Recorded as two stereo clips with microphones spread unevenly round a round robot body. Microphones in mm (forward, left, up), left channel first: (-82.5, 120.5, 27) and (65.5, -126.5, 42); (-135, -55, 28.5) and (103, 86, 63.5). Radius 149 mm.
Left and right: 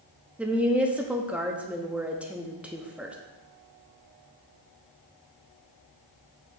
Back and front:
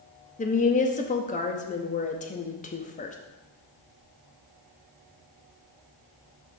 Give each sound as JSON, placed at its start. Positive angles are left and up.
{"t": 0.4, "sound": "a woman speaking", "azimuth_deg": -145, "distance_m": 0.7}